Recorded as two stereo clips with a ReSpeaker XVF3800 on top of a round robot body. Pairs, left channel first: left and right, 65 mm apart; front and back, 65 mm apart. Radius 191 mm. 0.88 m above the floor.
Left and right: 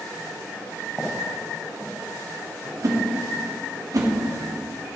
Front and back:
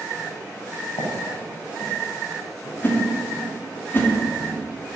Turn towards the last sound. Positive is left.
turn(degrees=-60)